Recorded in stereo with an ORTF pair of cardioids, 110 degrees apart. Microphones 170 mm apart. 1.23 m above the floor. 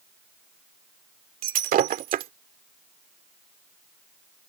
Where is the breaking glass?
55° right.